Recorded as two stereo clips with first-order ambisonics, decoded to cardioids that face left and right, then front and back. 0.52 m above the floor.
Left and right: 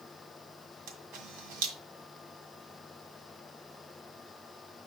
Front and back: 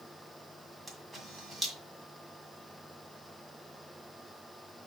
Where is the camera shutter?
95° right, 1.8 m.